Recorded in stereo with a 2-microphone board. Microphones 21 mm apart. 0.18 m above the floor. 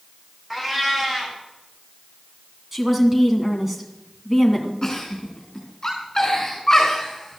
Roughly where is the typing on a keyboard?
No typing on a keyboard in this recording.